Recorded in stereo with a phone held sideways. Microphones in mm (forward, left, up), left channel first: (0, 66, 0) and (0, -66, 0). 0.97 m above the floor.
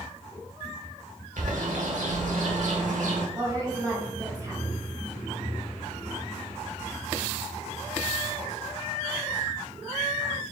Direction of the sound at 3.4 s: 25° right (ahead or behind).